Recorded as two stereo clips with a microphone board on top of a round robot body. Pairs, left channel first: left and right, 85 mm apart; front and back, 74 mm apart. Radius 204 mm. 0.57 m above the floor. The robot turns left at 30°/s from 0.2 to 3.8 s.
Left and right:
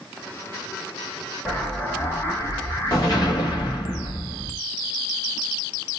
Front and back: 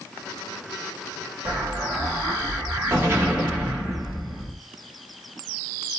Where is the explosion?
175° left, 1.7 m; by 4.5 s 100° left, 1.7 m.